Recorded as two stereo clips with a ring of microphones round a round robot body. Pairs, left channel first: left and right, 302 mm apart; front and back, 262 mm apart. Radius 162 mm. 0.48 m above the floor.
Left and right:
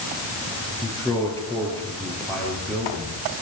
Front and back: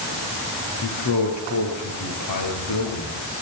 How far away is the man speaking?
About 9.5 m.